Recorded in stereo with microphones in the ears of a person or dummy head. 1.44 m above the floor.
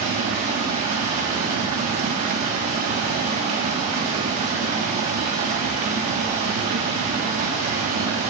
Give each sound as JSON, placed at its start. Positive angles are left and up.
{"t": 0.0, "sound": "running water", "side_deg": -40, "distance_m": 1.3}